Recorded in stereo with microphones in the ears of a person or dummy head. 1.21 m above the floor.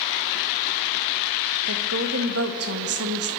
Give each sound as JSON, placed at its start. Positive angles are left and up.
{"t": 1.7, "sound": "a woman speaking", "side_deg": -80, "distance_m": 1.8}